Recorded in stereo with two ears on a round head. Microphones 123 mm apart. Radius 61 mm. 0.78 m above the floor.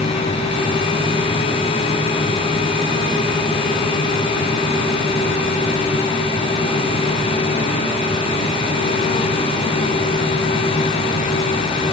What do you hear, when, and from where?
Only background noise.